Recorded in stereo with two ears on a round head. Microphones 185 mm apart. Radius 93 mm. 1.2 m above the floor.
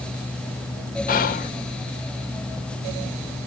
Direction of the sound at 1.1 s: 45° left (ahead or behind).